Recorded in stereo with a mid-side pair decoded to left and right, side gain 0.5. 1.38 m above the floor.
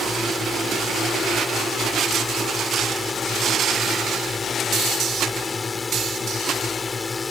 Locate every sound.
0.0 s a drone: 30° left